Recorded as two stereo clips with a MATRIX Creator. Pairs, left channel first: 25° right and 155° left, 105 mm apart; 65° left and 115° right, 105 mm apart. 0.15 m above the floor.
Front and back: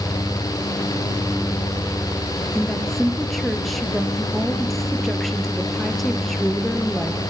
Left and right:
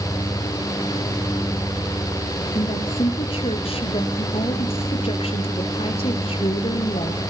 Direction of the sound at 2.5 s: 65° left.